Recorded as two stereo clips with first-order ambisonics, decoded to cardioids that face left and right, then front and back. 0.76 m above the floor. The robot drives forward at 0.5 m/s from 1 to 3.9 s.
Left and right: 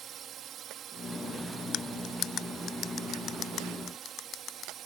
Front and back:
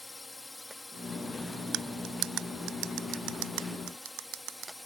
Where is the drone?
75° right; by 4.9 s 80° right.